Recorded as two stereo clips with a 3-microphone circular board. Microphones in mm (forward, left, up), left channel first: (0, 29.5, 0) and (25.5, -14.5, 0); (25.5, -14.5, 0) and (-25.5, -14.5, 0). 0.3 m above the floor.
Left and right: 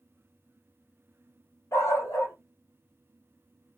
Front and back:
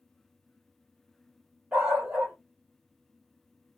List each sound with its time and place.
1.7 s a dog barking: 115° left, 2.5 m